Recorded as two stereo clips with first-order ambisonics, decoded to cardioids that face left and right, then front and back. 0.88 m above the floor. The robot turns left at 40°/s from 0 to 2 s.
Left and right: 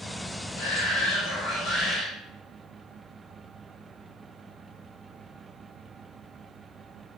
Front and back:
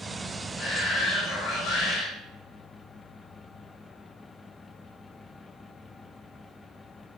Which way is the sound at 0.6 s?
75° left.